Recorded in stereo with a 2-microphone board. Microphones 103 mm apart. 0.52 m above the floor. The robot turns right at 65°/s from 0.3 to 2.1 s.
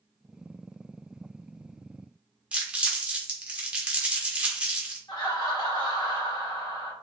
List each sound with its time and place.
2.5 s crumpling: 10° right (ahead or behind), 0.9 m
5.1 s laughter: 45° left (ahead or behind), 1.5 m